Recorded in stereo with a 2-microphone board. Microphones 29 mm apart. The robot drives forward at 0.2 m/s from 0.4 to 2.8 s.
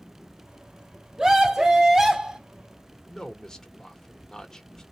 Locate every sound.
1.2 s a scream: 20° right (ahead or behind), 1.4 m; by 2.4 s 25° right (ahead or behind), 1.3 m
3.1 s a man speaking: 20° left (ahead or behind), 1.0 m